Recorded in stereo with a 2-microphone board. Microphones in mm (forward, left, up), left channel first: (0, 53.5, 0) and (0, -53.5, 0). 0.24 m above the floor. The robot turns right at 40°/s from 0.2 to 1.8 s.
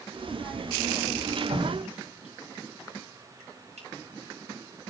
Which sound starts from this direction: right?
Dripping, at 1.5 s.